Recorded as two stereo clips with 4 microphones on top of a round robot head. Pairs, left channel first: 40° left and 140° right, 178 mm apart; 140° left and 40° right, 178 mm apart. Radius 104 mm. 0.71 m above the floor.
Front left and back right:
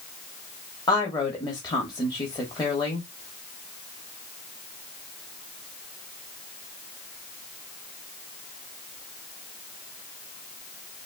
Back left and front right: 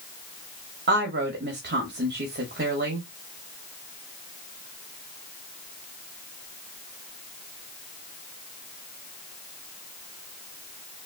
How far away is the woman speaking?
About 1.4 m.